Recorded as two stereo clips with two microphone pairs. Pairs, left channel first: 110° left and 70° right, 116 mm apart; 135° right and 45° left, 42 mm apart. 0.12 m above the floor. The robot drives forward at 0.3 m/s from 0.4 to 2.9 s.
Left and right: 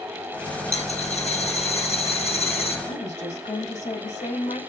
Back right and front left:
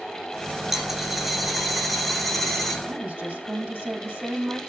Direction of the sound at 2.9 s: 100° left.